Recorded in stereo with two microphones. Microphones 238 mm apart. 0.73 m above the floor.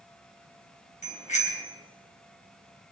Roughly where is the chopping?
No chopping in this recording.